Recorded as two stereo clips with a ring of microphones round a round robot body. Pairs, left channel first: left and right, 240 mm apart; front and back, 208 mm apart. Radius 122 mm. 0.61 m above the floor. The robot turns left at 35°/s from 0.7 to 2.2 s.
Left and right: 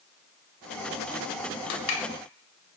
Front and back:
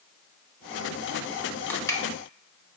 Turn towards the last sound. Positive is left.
turn(degrees=65)